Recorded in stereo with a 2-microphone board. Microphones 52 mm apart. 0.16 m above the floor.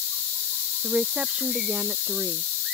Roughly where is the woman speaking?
Right.